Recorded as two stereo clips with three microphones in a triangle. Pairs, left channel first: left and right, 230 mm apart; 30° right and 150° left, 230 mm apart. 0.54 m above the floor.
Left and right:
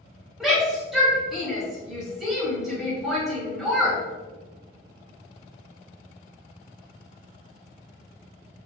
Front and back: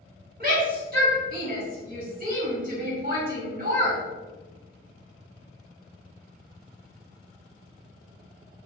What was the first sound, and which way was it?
A shout, straight behind.